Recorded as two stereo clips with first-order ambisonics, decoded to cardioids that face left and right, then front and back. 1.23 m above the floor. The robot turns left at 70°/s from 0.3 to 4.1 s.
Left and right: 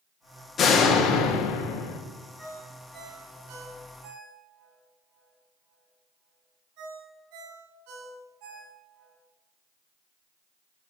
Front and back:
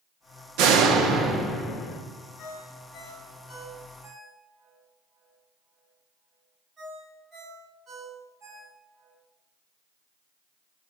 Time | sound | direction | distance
0.6 | a door slam | 155° left | 1.3 m
2.4 | a ringtone | 15° left | 4.5 m